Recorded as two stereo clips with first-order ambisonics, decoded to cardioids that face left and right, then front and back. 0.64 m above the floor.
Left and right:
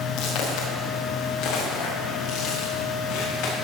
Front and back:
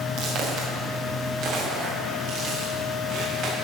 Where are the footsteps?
130° left, 3.5 m.